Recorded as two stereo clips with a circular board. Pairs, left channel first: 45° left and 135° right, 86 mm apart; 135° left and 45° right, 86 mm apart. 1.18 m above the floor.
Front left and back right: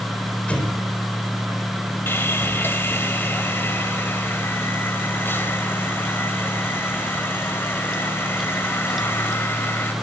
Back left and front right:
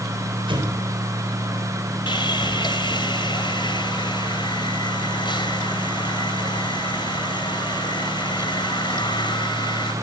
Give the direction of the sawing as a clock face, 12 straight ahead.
8 o'clock.